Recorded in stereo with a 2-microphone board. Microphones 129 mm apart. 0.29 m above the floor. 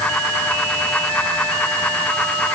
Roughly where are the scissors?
No scissors in this recording.